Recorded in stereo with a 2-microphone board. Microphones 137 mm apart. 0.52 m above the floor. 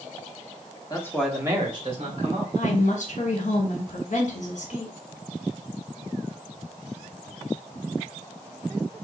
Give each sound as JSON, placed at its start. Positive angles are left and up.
{"t": 0.9, "sound": "a man speaking", "side_deg": 30, "distance_m": 1.0}
{"t": 2.5, "sound": "a woman speaking", "side_deg": 60, "distance_m": 1.4}